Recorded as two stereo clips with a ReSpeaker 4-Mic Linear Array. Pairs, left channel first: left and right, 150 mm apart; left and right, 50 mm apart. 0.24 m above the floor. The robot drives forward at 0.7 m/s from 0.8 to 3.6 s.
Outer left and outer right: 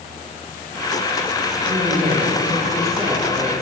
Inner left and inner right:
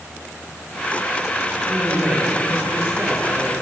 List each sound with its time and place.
1.6 s a woman speaking: 40° right (ahead or behind), 9.5 m; by 3.5 s 35° right (ahead or behind), 10.5 m